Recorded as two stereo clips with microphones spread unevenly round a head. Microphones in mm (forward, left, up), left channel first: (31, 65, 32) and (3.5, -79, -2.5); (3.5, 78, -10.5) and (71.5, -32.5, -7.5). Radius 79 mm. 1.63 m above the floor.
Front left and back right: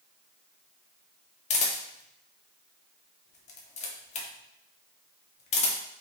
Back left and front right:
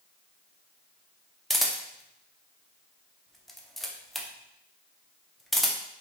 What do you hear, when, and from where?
1.5 s a camera shutter: 30° left, 0.5 m